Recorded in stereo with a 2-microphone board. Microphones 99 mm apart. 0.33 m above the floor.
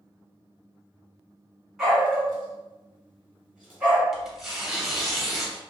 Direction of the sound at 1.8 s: 5° right (ahead or behind).